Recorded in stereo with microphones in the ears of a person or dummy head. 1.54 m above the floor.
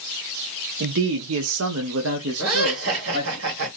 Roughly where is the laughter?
Right.